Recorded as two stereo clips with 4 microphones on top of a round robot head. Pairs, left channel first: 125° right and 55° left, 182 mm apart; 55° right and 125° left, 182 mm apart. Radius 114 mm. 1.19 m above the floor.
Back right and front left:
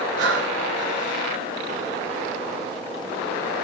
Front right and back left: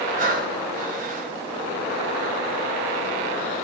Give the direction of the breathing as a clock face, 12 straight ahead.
9 o'clock.